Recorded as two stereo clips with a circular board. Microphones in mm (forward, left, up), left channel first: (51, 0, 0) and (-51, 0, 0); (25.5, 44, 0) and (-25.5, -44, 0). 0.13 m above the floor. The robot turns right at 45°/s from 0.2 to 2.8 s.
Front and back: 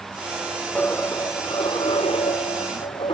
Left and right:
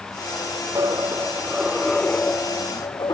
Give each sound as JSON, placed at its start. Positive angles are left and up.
{"t": 0.8, "sound": "a dropped coin", "azimuth_deg": -75}